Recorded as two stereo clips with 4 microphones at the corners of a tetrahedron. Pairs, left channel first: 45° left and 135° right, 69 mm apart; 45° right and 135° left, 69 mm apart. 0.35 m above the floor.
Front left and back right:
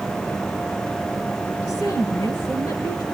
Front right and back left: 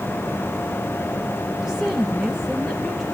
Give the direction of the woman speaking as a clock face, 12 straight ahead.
10 o'clock.